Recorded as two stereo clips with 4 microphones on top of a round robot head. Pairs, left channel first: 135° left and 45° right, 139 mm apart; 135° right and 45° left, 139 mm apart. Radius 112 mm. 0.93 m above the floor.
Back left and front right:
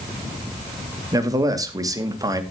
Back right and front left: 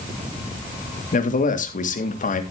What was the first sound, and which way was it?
A man speaking, 110° right.